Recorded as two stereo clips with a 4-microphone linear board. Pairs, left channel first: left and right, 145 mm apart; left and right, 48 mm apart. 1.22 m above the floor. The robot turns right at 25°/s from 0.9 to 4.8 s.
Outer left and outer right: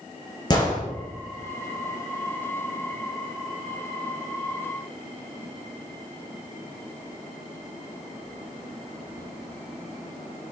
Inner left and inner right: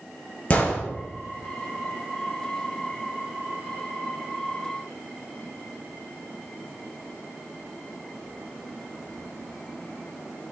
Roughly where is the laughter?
I don't hear laughter.